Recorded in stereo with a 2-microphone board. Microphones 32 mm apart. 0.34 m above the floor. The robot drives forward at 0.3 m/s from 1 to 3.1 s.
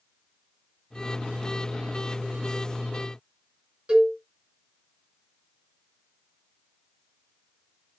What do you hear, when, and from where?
3.9 s a cowbell: 25° right (ahead or behind), 1.7 m